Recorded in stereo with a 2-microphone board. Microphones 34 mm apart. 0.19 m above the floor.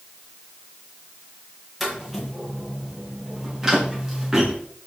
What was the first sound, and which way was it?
Footsteps, 5° right (ahead or behind).